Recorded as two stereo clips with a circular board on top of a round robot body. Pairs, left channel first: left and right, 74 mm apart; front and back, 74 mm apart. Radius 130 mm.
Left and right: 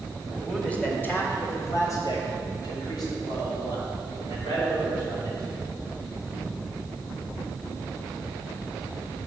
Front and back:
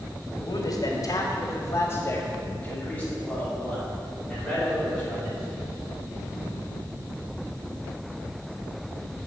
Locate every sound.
0.4 s a man speaking: 5° left, 1.9 m; by 5.4 s 85° left, 5.5 m